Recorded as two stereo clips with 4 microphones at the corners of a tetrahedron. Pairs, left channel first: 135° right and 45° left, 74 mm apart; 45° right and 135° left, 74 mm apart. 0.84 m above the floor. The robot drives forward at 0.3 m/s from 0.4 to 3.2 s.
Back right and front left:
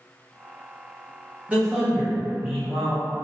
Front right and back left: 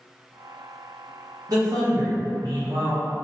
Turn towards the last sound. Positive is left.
turn(degrees=140)